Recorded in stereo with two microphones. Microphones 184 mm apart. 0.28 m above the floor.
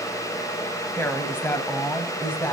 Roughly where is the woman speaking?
Centre.